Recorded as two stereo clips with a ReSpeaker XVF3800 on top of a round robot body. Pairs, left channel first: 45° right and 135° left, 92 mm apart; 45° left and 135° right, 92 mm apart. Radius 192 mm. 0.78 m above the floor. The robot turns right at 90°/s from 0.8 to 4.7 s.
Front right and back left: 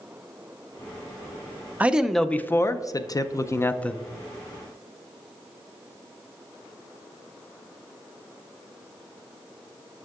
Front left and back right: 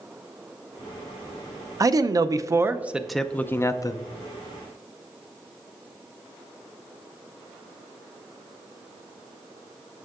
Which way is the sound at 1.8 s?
160° right.